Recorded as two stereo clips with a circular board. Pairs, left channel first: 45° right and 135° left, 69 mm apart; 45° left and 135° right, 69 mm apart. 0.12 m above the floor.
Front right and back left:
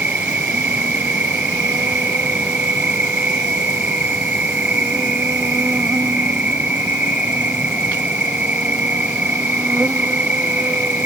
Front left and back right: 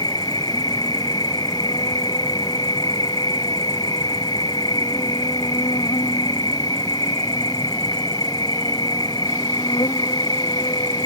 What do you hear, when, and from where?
0.0 s an insect: 65° left